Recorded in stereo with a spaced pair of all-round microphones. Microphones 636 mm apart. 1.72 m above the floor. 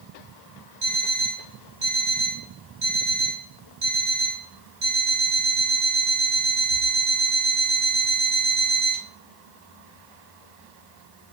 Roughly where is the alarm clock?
Right.